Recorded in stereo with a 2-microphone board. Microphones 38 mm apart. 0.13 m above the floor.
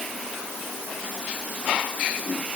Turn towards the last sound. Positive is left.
No sound to turn to.